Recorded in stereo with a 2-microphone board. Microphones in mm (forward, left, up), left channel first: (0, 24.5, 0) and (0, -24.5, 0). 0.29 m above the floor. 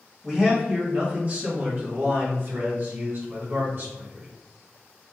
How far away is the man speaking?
About 1.1 m.